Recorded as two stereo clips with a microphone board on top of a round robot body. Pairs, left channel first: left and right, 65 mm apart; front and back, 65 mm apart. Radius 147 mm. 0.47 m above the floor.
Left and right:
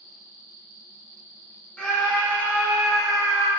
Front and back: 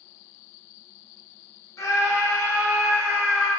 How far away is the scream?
About 1.5 m.